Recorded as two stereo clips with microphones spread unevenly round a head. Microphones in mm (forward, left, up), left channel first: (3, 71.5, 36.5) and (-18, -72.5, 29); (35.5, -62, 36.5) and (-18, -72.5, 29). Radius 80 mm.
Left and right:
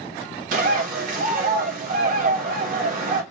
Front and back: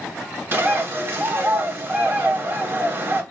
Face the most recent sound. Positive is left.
turn(degrees=-125)